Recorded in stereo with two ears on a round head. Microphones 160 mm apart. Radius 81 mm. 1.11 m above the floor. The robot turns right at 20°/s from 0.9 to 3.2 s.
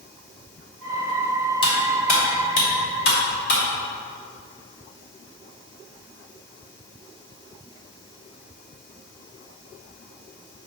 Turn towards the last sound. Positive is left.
turn(degrees=60)  # may be behind; listen again after turning